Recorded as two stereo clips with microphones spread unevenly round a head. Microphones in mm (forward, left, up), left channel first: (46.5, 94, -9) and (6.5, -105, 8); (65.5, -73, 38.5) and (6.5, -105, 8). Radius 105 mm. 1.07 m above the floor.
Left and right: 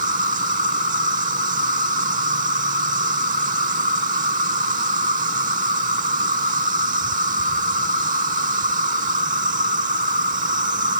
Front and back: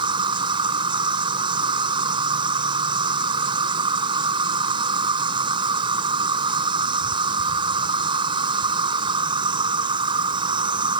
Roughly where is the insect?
Behind right.